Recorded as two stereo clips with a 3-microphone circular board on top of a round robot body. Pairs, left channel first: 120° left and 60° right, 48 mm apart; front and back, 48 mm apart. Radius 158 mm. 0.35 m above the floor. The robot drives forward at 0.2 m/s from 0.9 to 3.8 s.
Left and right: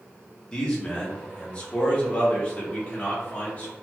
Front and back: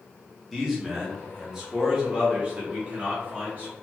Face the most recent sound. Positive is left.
turn(degrees=155)